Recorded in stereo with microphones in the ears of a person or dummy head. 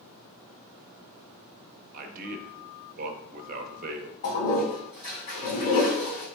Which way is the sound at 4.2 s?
45° left (ahead or behind).